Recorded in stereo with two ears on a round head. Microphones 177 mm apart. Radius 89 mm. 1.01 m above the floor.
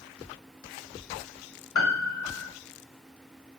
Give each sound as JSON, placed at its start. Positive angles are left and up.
{"t": 1.8, "sound": "a piano", "side_deg": 75, "distance_m": 3.5}